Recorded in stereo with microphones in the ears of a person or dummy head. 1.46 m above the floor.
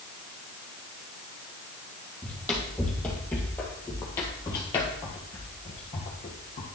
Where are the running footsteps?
5° left (ahead or behind), 3 m; by 6.7 s 35° left (ahead or behind), 1.7 m.